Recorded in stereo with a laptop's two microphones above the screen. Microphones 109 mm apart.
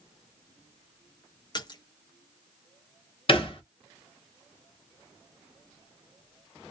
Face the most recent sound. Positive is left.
turn(degrees=50)  # may be behind; listen again after turning